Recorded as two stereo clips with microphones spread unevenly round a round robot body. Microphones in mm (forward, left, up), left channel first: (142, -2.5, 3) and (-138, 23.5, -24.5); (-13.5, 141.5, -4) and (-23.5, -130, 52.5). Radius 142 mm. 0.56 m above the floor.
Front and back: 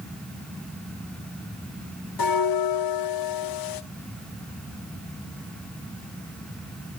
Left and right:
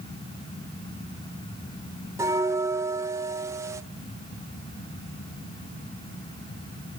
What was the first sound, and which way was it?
A bell, 5° right.